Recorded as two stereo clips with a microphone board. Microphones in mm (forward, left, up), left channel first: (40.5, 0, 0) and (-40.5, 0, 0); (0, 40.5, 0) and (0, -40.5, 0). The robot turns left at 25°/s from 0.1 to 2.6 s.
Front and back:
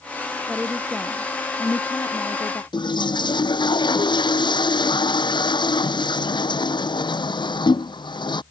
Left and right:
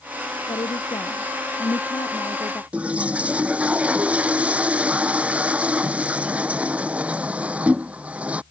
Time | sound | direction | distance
0.5 | a woman speaking | 95° left | ?
2.7 | a toilet flushing | 15° right | ?